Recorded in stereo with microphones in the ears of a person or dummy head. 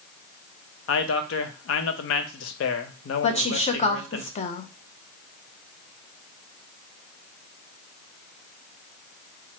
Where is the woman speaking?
30° left (ahead or behind), 0.5 m.